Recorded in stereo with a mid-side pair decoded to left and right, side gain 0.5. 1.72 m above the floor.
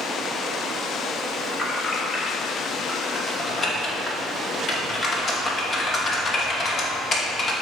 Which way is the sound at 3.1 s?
40° left.